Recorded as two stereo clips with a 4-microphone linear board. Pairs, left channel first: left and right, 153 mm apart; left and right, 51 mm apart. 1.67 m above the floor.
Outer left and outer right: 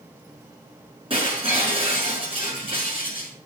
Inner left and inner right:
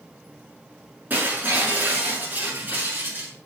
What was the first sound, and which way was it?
Breaking glass, 35° right (ahead or behind).